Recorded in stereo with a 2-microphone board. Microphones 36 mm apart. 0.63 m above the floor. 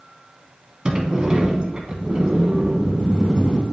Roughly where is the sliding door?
Right.